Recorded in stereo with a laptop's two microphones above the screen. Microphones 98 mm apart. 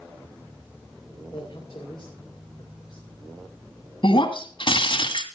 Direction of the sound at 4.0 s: 60° left (ahead or behind).